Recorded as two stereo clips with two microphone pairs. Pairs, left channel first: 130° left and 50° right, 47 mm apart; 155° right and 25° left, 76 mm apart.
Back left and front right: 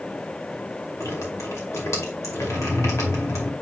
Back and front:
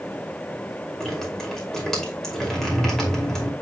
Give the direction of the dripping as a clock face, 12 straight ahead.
8 o'clock.